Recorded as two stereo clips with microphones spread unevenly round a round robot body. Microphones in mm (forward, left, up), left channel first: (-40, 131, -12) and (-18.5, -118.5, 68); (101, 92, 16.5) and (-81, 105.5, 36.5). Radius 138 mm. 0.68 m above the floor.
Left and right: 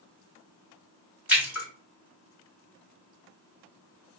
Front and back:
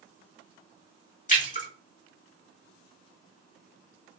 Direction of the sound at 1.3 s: 10° left.